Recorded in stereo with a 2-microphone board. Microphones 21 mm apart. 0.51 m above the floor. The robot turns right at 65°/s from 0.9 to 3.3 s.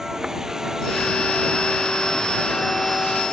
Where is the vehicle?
25° right; by 3.3 s 130° left.